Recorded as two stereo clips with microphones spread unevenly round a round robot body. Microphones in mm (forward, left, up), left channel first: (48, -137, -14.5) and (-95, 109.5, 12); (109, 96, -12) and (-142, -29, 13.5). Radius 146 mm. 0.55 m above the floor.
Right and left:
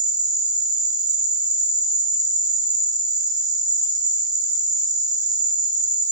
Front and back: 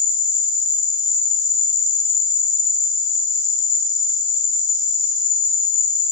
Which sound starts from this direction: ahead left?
An insect, at 0.0 s.